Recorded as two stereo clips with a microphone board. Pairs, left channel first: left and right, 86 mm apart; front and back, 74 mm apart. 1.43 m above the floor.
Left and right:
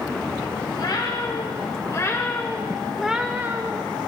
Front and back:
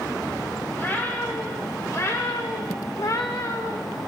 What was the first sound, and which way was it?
A cat meowing, 60° left.